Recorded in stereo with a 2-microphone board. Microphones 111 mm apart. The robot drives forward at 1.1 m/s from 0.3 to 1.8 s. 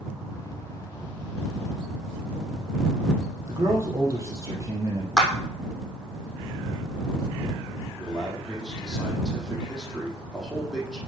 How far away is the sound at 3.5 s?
About 3.5 m.